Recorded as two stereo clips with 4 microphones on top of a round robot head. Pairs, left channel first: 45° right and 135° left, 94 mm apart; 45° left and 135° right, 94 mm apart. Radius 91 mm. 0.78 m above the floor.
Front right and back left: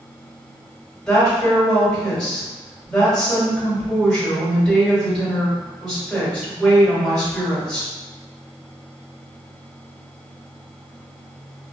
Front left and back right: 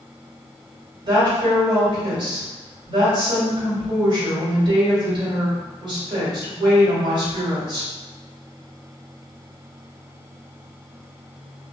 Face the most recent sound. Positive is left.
turn(degrees=-125)